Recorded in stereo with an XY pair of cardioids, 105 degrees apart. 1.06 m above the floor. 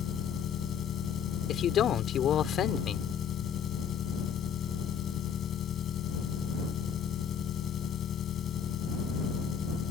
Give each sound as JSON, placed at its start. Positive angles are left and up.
{"t": 0.0, "sound": "an engine running", "azimuth_deg": 60}
{"t": 1.5, "sound": "a man speaking", "azimuth_deg": 65}